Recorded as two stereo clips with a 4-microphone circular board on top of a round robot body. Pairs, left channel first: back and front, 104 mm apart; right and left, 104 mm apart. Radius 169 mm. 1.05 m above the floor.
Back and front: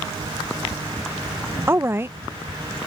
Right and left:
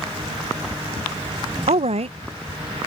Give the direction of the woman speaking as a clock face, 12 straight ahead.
10 o'clock.